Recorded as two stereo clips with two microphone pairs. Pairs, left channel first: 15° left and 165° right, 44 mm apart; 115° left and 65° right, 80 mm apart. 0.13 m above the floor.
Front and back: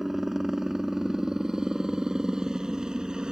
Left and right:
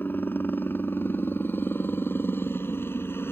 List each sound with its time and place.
0.0 s a helicopter: 120° left; by 3.3 s 135° left